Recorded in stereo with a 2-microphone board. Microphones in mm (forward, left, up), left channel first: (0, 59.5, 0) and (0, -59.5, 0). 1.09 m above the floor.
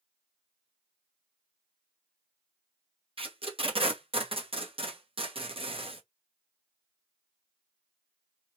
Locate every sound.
3.2 s tape being pulled: 50° right (ahead or behind), 0.8 m